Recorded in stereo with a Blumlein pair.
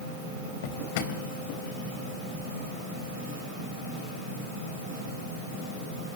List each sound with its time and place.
0.6 s a drawer: 50° left, 3.5 m